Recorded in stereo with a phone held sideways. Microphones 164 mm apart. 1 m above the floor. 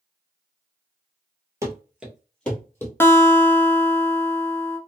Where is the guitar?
15° left (ahead or behind), 0.7 m.